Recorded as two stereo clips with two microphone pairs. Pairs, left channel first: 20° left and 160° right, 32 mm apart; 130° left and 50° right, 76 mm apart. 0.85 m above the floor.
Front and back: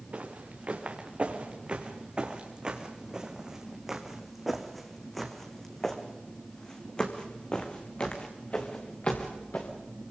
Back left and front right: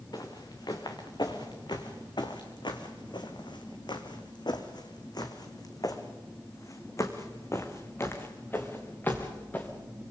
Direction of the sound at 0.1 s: 160° left.